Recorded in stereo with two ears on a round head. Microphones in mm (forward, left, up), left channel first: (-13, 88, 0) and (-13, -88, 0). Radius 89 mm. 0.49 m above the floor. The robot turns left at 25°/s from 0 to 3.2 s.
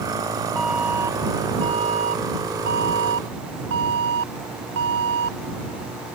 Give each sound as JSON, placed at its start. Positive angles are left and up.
{"t": 0.6, "sound": "an alarm", "azimuth_deg": 0}